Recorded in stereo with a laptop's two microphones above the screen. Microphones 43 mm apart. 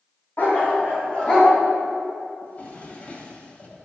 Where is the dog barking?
45° left (ahead or behind), 3.5 m; by 1.5 s 20° left (ahead or behind), 4 m.